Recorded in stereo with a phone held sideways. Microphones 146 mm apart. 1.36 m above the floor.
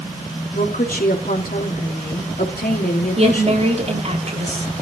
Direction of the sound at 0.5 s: 85° left.